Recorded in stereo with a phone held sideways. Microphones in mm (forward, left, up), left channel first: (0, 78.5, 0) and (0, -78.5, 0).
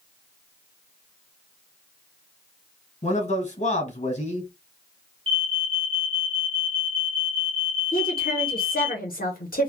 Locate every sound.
3.0 s a man speaking: 50° left (ahead or behind), 1.3 m
5.3 s an alarm: 35° right (ahead or behind), 0.9 m
7.9 s a woman speaking: 65° left (ahead or behind), 0.9 m